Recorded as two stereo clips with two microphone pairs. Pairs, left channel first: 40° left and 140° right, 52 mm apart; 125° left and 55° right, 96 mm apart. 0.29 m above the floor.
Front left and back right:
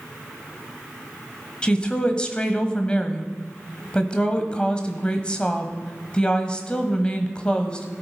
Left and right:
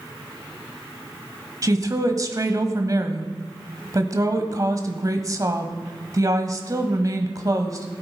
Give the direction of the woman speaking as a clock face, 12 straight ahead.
1 o'clock.